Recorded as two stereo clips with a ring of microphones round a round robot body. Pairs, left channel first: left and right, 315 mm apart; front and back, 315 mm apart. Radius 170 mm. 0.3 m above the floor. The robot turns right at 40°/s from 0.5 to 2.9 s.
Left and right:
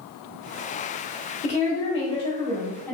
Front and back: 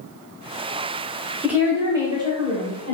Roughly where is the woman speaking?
Left.